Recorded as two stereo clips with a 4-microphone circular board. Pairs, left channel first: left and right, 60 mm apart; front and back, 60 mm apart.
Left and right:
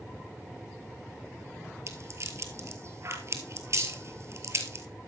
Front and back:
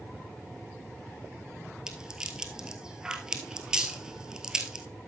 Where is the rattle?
105° right, 1.6 m.